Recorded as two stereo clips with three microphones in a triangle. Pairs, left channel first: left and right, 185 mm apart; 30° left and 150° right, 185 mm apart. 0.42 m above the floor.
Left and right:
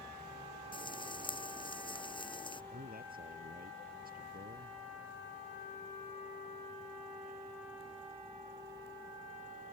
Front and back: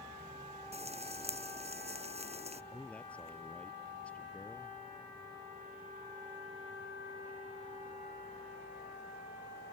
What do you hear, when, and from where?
0.7 s frying: 155° left
2.7 s a man speaking: 55° right